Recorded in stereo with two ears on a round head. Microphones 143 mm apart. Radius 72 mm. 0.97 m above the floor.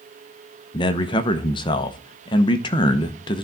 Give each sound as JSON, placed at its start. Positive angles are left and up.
{"t": 0.7, "sound": "a man speaking", "side_deg": 30, "distance_m": 0.9}